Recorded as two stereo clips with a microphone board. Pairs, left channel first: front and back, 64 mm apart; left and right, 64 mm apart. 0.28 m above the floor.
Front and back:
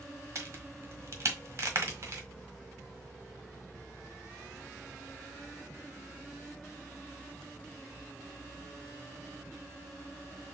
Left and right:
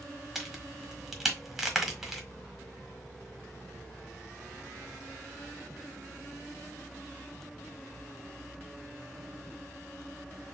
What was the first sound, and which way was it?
A crack, 175° right.